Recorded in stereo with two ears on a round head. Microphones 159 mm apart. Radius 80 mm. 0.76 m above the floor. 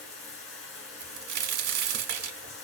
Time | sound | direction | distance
0.0 | running water | 70° left (ahead or behind) | 2.5 m
1.0 | a crack | 60° right (ahead or behind) | 1.1 m